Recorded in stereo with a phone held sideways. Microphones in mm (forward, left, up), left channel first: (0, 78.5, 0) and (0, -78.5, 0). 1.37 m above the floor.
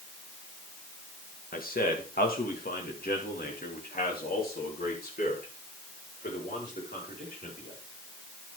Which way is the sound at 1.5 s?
75° left (ahead or behind).